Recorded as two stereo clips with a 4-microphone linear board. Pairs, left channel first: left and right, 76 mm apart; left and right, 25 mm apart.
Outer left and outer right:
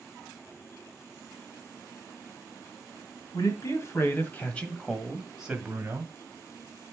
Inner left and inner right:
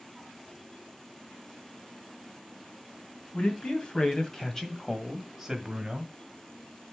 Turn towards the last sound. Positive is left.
turn(degrees=-30)  # may be behind; listen again after turning